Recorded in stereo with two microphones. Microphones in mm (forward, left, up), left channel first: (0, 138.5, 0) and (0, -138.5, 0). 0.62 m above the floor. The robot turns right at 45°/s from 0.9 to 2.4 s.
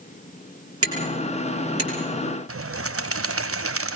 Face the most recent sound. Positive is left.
turn(degrees=-55)  # may be behind; listen again after turning